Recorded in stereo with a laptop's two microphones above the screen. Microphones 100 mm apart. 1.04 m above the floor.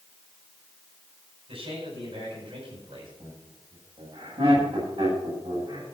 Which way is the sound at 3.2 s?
80° right.